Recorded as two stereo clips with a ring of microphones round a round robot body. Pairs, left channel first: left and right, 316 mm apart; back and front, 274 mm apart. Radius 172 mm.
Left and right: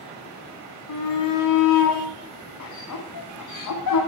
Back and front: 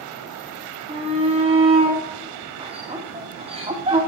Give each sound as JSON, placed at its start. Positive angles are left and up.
{"t": 0.9, "sound": "a shout", "azimuth_deg": 70, "distance_m": 1.8}